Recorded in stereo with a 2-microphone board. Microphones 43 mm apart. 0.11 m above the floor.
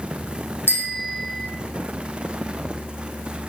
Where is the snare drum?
No snare drum in this recording.